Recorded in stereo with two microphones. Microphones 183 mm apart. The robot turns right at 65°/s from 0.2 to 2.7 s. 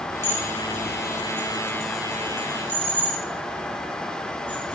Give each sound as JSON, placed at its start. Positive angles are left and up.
{"t": 0.2, "sound": "dishes clattering", "side_deg": -20, "distance_m": 3.0}